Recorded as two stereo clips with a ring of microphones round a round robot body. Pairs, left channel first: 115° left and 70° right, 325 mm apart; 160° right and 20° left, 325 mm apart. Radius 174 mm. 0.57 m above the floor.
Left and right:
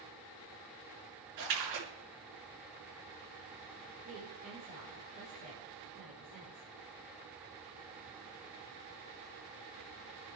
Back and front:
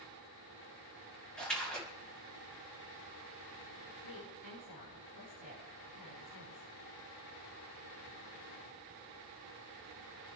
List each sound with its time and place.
1.4 s a splash: 70° right, 3.5 m
4.0 s a woman speaking: 130° right, 6.5 m